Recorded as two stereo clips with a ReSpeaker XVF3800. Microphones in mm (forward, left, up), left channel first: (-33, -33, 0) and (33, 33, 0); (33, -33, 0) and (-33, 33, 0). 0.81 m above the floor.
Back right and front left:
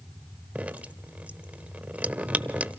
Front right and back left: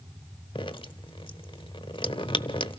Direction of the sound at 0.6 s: 25° right.